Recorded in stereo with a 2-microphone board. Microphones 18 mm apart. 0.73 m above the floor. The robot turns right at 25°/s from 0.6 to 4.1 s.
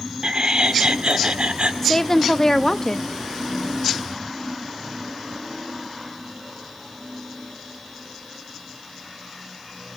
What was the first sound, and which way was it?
Laughter, 50° right (ahead or behind).